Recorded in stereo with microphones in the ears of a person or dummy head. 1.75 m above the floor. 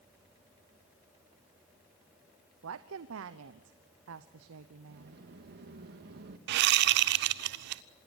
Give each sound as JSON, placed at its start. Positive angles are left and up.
{"t": 2.6, "sound": "a woman speaking", "side_deg": -75, "distance_m": 0.9}
{"t": 4.9, "sound": "a sliding door", "side_deg": -60, "distance_m": 1.8}
{"t": 6.5, "sound": "a whoosh", "side_deg": -60, "distance_m": 0.6}